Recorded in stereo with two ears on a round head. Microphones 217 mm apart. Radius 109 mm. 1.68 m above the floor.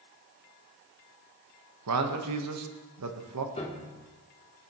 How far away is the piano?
About 1.0 m.